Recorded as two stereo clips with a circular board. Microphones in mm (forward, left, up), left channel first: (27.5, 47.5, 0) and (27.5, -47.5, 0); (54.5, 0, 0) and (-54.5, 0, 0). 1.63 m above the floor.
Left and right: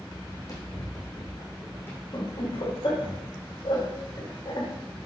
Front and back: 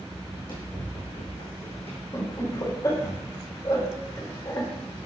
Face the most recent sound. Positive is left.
turn(degrees=55)